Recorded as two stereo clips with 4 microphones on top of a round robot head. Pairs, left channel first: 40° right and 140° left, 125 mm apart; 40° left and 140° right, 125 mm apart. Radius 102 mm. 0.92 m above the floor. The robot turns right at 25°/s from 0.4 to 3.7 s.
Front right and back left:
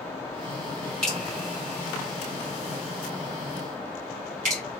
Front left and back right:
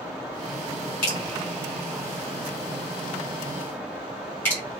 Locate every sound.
1.0 s dripping: 45° left, 1.3 m; by 4.6 s 115° left, 1.3 m